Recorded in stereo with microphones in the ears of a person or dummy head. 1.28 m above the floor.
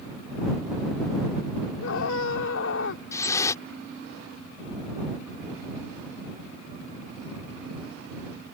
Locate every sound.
1.8 s a scream: 75° left (ahead or behind)
3.1 s dripping: 20° left (ahead or behind)